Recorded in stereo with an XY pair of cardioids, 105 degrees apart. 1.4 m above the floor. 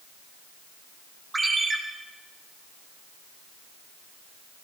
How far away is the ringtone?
About 1.6 m.